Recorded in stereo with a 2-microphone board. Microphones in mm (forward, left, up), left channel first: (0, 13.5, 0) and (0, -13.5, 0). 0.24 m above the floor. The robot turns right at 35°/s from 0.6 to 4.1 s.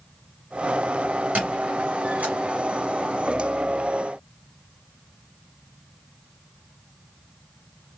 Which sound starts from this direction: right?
A squeak, at 1.4 s.